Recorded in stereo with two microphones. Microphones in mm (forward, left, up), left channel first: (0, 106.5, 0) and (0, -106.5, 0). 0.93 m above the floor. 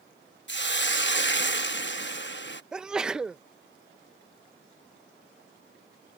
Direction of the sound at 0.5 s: 60° left (ahead or behind).